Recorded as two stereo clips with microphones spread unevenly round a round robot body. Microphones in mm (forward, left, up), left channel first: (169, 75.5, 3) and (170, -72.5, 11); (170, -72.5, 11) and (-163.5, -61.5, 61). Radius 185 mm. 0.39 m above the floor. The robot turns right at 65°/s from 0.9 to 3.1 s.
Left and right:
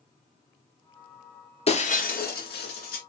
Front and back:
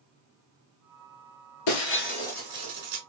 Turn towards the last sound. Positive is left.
turn(degrees=135)